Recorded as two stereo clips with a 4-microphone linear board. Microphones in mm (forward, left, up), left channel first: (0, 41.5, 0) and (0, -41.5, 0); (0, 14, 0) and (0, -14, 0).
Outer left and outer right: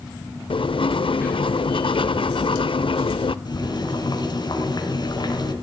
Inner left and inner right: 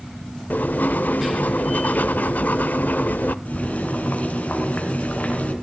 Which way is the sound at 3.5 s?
55° left (ahead or behind).